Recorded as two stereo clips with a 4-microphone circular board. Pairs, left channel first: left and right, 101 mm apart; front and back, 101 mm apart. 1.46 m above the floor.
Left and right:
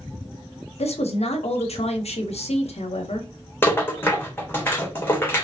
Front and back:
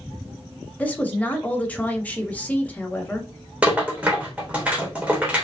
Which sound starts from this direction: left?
A woman speaking, at 0.8 s.